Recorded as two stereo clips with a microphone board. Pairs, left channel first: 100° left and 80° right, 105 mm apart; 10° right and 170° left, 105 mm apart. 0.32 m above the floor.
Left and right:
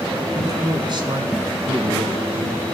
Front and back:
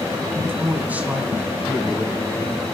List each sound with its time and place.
0.3 s a man speaking: 125° right, 2.5 m; by 2.8 s 95° right, 3.5 m